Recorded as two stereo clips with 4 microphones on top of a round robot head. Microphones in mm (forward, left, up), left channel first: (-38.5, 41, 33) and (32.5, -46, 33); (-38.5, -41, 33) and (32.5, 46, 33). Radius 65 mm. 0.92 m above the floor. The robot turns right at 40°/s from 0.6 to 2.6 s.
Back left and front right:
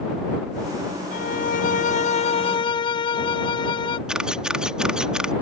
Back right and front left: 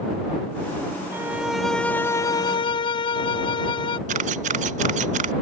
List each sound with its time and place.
1.1 s a violin: 120° left; by 4.0 s straight behind
4.1 s a camera shutter: 35° left